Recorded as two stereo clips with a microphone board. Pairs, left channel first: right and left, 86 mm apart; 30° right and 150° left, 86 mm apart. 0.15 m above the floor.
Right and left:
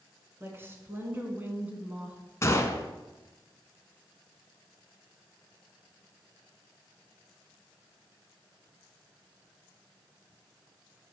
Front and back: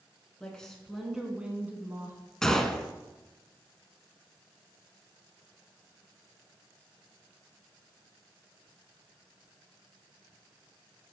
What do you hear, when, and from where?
0.4 s a woman speaking: 45° left, 1.7 m; by 2.2 s 155° left, 1.5 m
2.4 s a gunshot: 110° right, 0.7 m